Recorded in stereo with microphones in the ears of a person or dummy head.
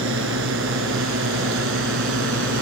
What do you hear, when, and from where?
0.0 s a drone: 70° right (ahead or behind)